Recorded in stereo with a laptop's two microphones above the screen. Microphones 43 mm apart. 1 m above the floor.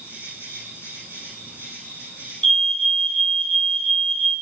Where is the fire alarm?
15° left (ahead or behind), 1.4 m.